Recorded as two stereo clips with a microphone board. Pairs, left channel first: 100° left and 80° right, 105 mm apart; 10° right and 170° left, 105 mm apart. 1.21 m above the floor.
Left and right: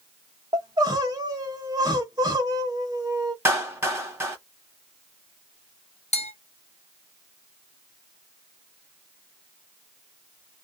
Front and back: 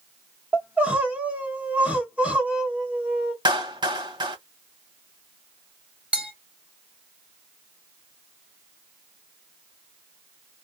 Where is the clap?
145° right, 1.3 m.